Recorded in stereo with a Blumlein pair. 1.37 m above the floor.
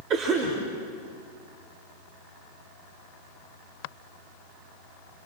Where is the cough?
35° right, 4 m.